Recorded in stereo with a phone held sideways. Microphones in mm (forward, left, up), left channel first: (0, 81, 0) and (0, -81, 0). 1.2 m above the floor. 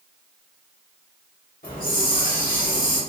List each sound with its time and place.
1.6 s a hiss: 60° left (ahead or behind), 1.6 m